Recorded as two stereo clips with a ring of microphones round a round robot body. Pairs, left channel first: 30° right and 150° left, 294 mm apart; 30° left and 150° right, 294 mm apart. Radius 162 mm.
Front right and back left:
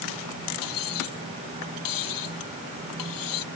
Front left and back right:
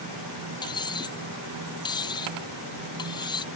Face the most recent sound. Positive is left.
turn(degrees=-45)